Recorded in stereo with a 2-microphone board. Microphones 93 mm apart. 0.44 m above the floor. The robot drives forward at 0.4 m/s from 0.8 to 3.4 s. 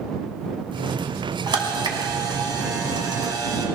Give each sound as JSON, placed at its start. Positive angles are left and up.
{"t": 1.5, "sound": "a camera shutter", "side_deg": -55, "distance_m": 2.0}